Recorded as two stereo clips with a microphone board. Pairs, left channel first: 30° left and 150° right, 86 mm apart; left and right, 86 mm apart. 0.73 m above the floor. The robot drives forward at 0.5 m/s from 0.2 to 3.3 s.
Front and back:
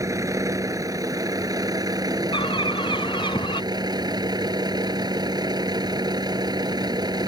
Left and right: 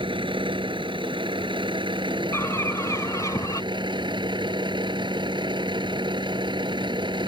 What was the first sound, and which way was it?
A vehicle, 100° right.